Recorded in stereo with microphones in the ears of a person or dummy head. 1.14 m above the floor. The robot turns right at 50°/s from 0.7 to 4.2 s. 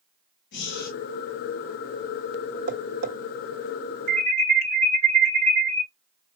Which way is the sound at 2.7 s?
60° right (ahead or behind).